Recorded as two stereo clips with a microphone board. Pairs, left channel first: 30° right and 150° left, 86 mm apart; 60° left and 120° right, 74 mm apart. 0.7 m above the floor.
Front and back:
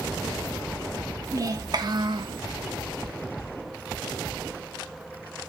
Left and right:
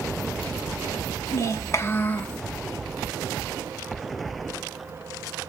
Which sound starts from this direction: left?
A child speaking, at 1.3 s.